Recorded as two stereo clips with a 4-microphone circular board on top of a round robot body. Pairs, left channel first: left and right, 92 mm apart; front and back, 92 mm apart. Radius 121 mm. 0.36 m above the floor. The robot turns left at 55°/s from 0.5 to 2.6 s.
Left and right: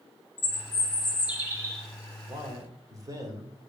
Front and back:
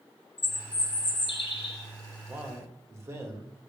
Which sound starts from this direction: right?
A man speaking, at 2.3 s.